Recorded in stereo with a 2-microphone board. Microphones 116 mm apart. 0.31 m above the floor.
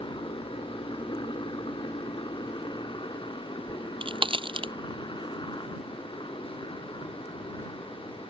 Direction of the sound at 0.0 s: 40° left (ahead or behind).